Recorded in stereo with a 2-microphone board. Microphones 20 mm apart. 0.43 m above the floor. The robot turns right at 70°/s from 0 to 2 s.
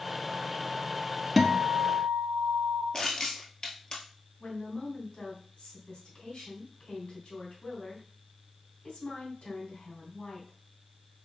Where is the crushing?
40° left (ahead or behind), 1.4 m.